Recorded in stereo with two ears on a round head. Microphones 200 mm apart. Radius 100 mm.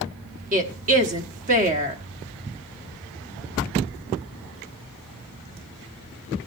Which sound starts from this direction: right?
A woman speaking, at 0.5 s.